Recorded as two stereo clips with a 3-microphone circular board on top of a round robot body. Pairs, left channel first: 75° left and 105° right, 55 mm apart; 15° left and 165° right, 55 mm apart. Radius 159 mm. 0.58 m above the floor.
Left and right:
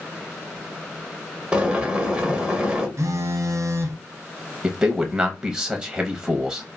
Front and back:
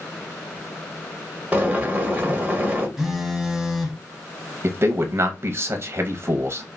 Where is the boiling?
145° right, 1.1 m.